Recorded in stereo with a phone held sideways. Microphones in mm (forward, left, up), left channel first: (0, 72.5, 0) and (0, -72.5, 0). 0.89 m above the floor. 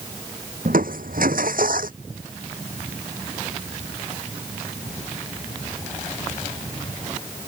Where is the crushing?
80° right.